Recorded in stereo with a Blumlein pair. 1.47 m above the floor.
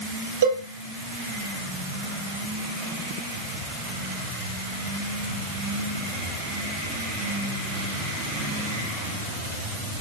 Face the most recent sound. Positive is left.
turn(degrees=-65)